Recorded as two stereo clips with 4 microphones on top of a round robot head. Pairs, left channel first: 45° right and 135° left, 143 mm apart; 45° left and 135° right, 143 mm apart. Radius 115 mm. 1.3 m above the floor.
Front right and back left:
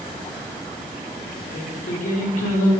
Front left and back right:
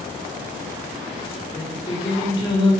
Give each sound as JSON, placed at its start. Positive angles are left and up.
{"t": 1.5, "sound": "singing", "azimuth_deg": -15, "distance_m": 2.0}